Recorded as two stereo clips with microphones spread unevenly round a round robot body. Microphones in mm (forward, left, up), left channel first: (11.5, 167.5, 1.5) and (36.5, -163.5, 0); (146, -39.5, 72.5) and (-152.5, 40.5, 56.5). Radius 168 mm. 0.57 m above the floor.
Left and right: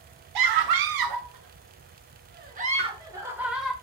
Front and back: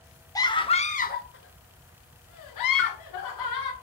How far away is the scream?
About 1.3 m.